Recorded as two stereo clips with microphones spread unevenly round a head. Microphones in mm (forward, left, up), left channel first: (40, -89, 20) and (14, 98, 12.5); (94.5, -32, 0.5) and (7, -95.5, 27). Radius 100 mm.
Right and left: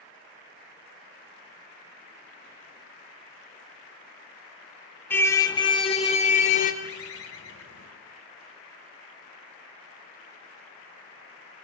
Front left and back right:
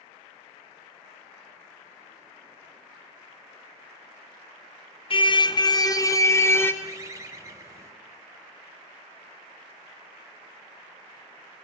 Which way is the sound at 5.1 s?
5° right.